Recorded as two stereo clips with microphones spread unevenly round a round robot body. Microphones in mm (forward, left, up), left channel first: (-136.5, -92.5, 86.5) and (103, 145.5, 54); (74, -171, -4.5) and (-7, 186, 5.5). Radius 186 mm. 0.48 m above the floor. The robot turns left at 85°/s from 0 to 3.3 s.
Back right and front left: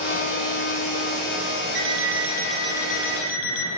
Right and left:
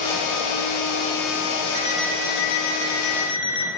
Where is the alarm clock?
35° left, 9 m; by 3.7 s 100° right, 9 m.